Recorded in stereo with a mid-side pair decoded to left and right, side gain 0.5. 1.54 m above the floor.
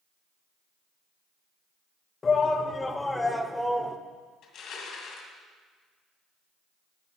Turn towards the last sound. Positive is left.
turn(degrees=65)